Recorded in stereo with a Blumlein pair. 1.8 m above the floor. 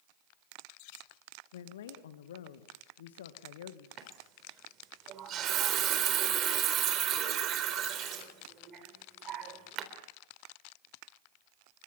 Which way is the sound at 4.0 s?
30° right.